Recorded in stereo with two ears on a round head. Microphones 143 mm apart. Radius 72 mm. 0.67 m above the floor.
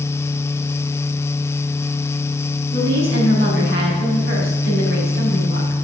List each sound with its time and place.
2.7 s a woman speaking: 70° right (ahead or behind), 5 m